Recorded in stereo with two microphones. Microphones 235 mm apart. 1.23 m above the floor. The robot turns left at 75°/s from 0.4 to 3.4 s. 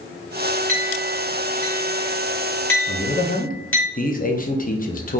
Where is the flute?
No flute in this recording.